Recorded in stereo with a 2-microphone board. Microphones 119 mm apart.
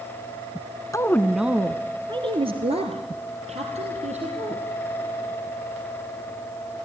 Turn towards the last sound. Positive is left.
turn(degrees=-75)  # may be behind; listen again after turning